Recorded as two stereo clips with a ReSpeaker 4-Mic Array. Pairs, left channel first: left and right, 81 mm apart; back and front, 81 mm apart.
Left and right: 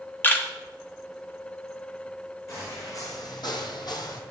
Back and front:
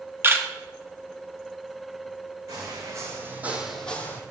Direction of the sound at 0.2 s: 40° left.